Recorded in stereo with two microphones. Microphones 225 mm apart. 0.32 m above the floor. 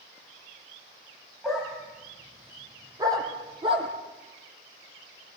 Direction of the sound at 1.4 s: Centre (ahead or behind).